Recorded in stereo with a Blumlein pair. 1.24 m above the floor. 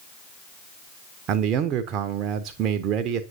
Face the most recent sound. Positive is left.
turn(degrees=-35)